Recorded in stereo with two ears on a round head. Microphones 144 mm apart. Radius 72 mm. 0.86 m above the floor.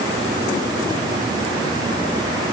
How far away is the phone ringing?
No phone ringing in this recording.